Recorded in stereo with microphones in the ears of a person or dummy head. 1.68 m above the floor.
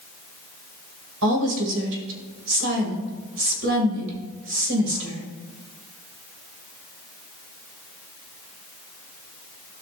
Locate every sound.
1.2 s a woman speaking: 65° right (ahead or behind), 2.5 m